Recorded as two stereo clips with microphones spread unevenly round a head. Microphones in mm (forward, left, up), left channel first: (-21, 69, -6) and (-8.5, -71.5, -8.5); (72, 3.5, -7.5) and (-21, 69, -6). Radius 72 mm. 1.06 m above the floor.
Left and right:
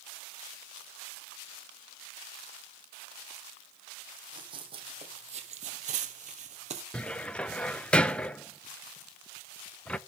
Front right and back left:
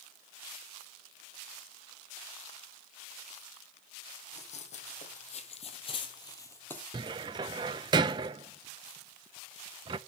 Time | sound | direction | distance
4.3 | running footsteps | 25° right | 2.5 m
6.9 | a cupboard door | 175° left | 0.5 m